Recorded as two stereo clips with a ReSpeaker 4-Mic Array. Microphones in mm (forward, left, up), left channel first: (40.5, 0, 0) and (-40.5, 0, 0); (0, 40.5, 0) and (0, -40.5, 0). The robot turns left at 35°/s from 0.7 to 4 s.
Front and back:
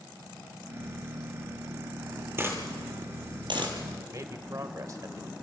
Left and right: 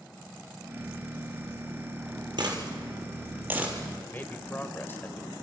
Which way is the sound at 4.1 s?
145° left.